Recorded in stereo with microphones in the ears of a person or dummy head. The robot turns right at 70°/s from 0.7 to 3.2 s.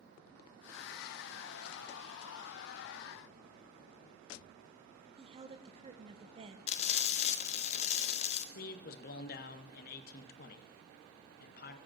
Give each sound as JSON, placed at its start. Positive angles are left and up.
{"t": 5.2, "sound": "a woman speaking", "side_deg": -25, "distance_m": 0.8}
{"t": 6.7, "sound": "frying", "side_deg": 35, "distance_m": 0.7}
{"t": 8.6, "sound": "a man speaking", "side_deg": 45, "distance_m": 0.7}